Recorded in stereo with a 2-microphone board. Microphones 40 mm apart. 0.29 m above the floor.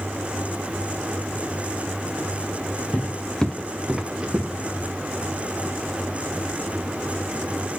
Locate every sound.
2.9 s footsteps: 40° left (ahead or behind), 1.5 m; by 4.9 s 40° right (ahead or behind), 2.5 m